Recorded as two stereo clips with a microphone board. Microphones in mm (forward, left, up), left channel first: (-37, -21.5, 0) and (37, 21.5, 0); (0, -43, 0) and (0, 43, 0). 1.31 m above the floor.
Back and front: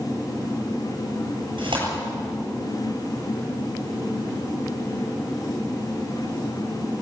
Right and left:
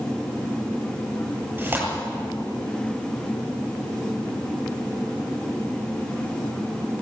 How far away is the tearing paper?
About 8 m.